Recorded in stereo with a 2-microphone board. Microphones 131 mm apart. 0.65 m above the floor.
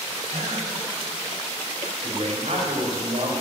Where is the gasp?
75° right (ahead or behind), 2.5 m.